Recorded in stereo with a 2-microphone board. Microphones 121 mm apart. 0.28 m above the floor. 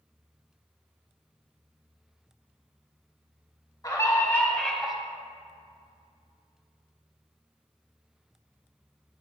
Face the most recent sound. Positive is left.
turn(degrees=-5)  # may be behind; listen again after turning